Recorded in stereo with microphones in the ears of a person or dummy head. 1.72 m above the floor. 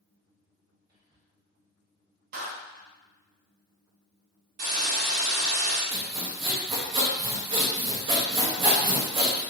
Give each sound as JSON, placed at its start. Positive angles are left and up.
{"t": 0.9, "sound": "whispering", "side_deg": -15, "distance_m": 1.0}
{"t": 2.3, "sound": "a clap", "side_deg": -40, "distance_m": 0.8}
{"t": 4.6, "sound": "a hiss", "side_deg": -35, "distance_m": 1.0}
{"t": 5.9, "sound": "sawing", "side_deg": -35, "distance_m": 0.6}